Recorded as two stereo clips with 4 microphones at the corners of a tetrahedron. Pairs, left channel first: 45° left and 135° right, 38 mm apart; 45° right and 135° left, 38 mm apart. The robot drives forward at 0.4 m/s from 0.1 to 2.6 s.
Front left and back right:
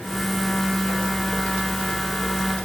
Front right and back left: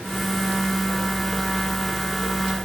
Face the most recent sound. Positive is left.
No sound to turn to.